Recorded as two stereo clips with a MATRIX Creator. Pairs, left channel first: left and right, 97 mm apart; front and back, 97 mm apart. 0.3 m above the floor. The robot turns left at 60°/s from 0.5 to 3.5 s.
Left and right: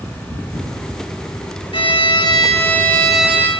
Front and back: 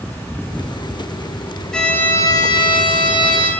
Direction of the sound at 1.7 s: 85° left.